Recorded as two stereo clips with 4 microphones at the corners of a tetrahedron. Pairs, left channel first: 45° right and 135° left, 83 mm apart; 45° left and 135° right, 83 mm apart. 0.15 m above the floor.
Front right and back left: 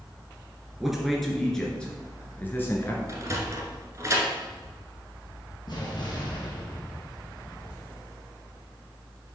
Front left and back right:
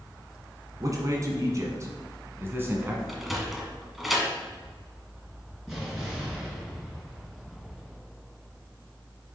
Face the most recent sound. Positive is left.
turn(degrees=-50)